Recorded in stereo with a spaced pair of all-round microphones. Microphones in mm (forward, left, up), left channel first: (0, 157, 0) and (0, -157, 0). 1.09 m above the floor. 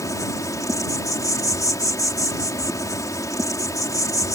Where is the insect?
10° left (ahead or behind).